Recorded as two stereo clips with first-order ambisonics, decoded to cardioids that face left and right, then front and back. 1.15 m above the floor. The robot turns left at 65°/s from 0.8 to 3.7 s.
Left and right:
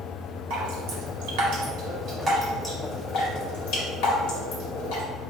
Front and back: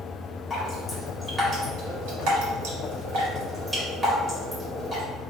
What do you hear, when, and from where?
0.5 s dripping: 65° right, 1.9 m; by 5.0 s 105° left, 1.9 m